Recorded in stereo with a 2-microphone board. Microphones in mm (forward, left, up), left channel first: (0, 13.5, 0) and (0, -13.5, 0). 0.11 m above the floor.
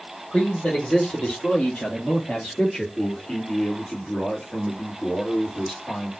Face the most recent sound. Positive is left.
turn(degrees=40)  # may be behind; listen again after turning